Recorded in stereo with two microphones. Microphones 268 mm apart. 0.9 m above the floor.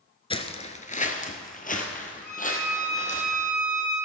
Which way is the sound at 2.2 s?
10° right (ahead or behind).